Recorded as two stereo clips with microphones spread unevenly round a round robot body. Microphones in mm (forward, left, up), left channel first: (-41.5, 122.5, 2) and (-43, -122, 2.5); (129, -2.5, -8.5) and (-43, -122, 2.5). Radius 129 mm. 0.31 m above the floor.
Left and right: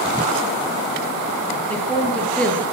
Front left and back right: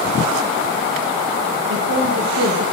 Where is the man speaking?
175° left, 6.5 m.